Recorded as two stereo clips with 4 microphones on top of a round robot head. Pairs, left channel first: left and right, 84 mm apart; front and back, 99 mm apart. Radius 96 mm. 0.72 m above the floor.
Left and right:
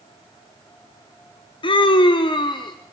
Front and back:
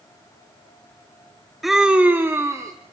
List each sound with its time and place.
1.6 s a scream: 90° left, 1.2 m; by 2.7 s 120° left, 1.8 m